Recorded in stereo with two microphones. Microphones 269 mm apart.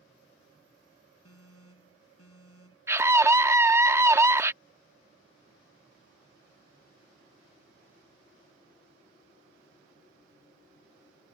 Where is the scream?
10° right (ahead or behind).